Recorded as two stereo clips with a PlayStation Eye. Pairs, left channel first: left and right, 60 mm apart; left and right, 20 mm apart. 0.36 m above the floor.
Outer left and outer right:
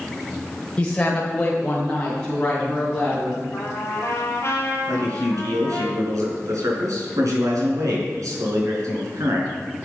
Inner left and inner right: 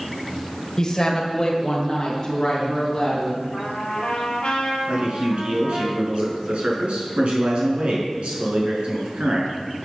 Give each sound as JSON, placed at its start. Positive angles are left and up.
{"t": 0.8, "sound": "a woman speaking", "side_deg": 20, "distance_m": 1.4}
{"t": 3.5, "sound": "a trumpet", "side_deg": 50, "distance_m": 3.0}
{"t": 4.9, "sound": "a man speaking", "side_deg": -70, "distance_m": 5.5}